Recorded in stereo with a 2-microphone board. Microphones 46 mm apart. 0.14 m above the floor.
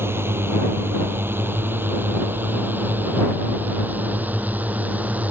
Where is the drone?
60° right (ahead or behind); by 5.3 s 35° right (ahead or behind).